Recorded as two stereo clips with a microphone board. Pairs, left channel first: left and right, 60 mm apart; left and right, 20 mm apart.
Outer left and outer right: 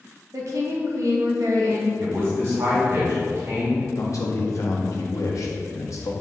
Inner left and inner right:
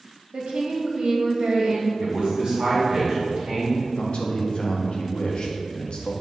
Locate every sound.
0.3 s a woman speaking: 60° right (ahead or behind), 1.4 m
2.0 s a man speaking: 45° right (ahead or behind), 1.9 m
3.9 s a man speaking: 60° left (ahead or behind), 1.1 m